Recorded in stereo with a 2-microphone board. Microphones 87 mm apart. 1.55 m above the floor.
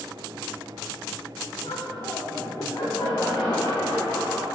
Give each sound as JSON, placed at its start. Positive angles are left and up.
{"t": 1.6, "sound": "laughter", "side_deg": 80, "distance_m": 4.0}